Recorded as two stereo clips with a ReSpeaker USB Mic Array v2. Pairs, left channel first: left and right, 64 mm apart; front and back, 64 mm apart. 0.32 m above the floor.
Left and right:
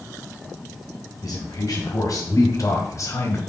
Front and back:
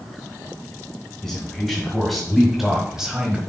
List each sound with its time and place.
1.2 s a man speaking: 85° left, 2.5 m; by 3.4 s 110° left, 1.4 m